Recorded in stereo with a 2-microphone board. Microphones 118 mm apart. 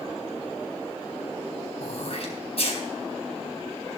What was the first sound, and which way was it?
Throat clearing, 55° left (ahead or behind).